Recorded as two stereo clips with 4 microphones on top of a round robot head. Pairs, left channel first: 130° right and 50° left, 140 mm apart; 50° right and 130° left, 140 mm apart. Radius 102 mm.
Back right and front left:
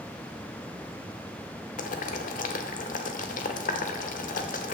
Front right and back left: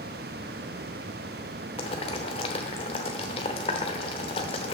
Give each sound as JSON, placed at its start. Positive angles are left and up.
{"t": 1.8, "sound": "boiling", "azimuth_deg": -100, "distance_m": 0.8}